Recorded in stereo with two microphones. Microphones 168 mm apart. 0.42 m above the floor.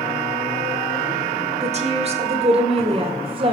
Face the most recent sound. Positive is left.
turn(degrees=-30)  # may be behind; listen again after turning